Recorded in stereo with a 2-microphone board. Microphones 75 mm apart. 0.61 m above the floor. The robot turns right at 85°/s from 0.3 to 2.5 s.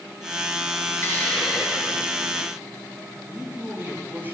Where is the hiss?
145° left, 4.5 m; by 2.5 s 90° right, 4.5 m.